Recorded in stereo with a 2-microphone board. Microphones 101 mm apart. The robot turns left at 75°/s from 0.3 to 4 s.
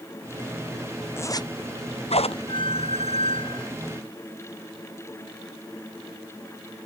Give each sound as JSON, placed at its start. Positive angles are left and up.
{"t": 1.2, "sound": "a zipper", "side_deg": 25}
{"t": 2.5, "sound": "a squeak", "azimuth_deg": 130}